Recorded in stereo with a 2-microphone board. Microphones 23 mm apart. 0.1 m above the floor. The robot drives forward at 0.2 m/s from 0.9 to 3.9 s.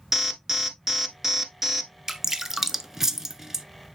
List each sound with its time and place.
0.1 s an alarm: 15° right (ahead or behind), 1.0 m
2.1 s dripping: 20° right (ahead or behind), 0.6 m